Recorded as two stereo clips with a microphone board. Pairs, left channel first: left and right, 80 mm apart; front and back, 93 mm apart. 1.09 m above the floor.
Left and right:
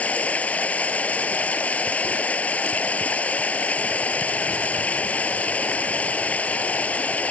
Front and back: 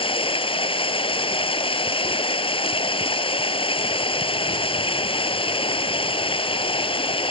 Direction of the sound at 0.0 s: 15° left.